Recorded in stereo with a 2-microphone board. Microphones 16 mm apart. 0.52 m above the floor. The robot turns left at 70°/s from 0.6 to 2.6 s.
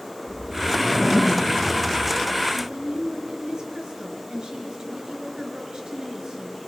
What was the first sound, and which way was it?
A whoosh, 5° right (ahead or behind).